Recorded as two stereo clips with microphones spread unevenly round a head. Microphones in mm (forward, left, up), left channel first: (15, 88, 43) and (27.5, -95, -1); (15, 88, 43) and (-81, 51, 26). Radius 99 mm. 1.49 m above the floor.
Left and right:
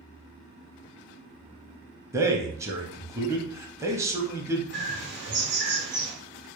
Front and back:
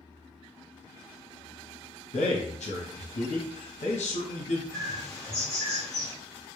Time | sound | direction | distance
2.1 | a man speaking | 10° right | 0.6 m
4.7 | a bird | 65° right | 0.7 m